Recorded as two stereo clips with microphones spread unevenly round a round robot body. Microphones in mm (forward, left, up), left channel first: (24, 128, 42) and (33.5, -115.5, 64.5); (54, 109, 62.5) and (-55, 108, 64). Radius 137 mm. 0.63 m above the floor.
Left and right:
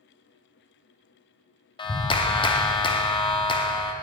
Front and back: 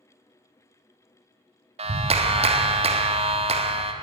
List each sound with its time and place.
1.8 s a clap: 160° left, 0.6 m